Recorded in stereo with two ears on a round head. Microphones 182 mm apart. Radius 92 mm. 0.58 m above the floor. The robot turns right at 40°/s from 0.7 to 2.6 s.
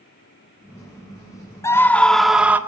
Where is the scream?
155° left, 1.4 m; by 2.6 s 165° right, 1.4 m.